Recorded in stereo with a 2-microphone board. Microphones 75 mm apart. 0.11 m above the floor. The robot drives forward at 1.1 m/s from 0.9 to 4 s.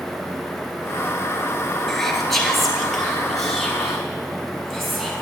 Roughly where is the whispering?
Centre.